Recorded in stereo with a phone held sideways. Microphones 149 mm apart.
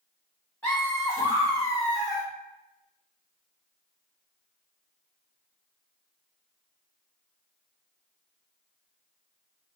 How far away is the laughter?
About 1.4 m.